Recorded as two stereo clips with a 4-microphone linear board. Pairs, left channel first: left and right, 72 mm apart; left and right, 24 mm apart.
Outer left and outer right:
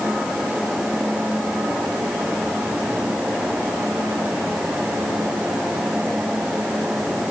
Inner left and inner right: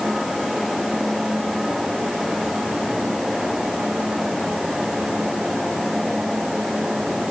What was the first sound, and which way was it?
Only background noise.